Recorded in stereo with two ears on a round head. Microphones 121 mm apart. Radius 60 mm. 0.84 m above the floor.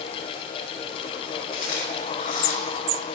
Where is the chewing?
65° left (ahead or behind), 5 m.